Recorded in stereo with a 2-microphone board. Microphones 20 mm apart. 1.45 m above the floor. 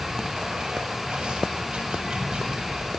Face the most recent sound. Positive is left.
turn(degrees=-60)  # may be behind; listen again after turning